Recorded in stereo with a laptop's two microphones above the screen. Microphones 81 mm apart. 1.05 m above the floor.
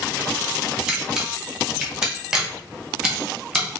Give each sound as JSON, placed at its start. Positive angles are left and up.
{"t": 0.9, "sound": "a camera shutter", "side_deg": -5, "distance_m": 0.7}